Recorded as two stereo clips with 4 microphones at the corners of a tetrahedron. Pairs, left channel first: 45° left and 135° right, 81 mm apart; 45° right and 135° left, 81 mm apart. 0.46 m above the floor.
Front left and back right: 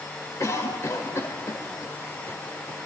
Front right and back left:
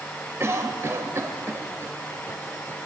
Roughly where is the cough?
Left.